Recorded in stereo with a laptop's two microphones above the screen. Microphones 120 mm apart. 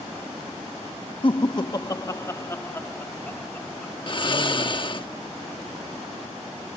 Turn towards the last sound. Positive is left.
turn(degrees=45)  # may be behind; listen again after turning